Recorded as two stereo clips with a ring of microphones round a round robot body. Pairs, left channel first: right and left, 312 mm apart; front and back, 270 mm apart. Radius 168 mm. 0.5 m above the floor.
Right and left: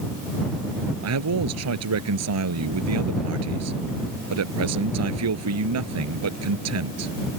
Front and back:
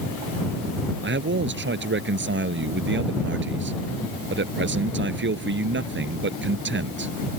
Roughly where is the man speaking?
Behind left.